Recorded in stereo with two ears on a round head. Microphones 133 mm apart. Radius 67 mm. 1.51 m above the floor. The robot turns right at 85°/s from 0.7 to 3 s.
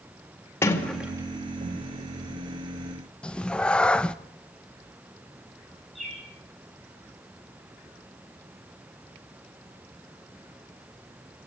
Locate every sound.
0.6 s a sliding door: 15° left (ahead or behind), 2.5 m; by 1.9 s 70° right (ahead or behind), 2.5 m
3.2 s a cat meowing: 5° left (ahead or behind), 0.7 m
6.0 s a bird: centre (ahead or behind), 10 m